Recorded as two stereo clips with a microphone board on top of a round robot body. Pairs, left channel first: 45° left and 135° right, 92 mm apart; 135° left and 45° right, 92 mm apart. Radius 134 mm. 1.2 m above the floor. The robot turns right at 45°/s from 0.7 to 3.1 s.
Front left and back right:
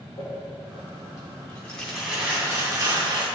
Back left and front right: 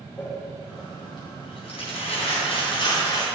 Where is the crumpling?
80° left, 3 m; by 3.2 s 175° right, 3 m.